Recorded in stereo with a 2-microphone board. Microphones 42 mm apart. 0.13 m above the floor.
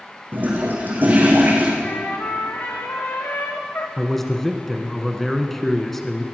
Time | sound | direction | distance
0.3 | a toilet flushing | 45° right (ahead or behind) | 4.5 m
1.8 | a trumpet | 60° left (ahead or behind) | 2.5 m
4.0 | a man speaking | 5° left (ahead or behind) | 1.3 m